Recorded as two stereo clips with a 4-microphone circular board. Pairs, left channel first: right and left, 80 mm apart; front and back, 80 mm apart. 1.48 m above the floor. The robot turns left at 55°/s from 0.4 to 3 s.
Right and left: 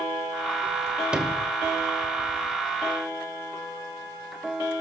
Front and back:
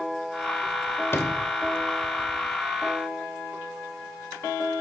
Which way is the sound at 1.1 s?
20° left.